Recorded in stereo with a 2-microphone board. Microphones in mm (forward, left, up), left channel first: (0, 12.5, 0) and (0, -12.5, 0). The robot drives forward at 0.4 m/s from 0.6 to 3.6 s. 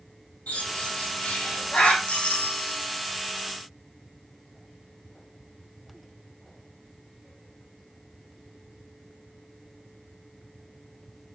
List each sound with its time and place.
0.5 s a bird: 80° left, 5.5 m; by 2.0 s 75° left (ahead or behind), 5.5 m
2.1 s a doorbell: 70° left (ahead or behind), 5 m; by 2.8 s 65° left (ahead or behind), 5 m